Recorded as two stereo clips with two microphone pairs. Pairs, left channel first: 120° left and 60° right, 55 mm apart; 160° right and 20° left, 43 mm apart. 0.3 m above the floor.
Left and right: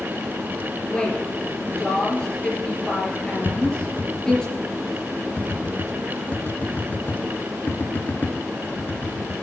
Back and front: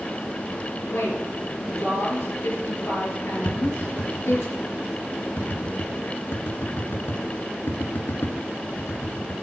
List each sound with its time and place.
0.9 s a woman speaking: 160° right, 5 m
3.5 s tapping: 175° left, 1.4 m